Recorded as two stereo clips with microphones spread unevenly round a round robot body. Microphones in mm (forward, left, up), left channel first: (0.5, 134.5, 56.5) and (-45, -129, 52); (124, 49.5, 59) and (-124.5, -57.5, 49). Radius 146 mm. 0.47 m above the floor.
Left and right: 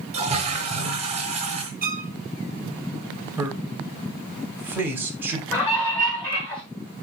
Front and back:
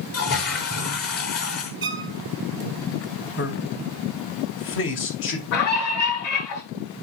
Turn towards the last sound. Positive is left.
turn(degrees=0)